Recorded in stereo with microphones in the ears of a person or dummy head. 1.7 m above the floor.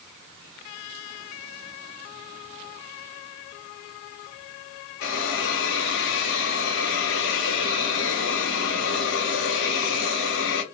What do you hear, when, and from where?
5.0 s a hiss: 65° left (ahead or behind), 0.8 m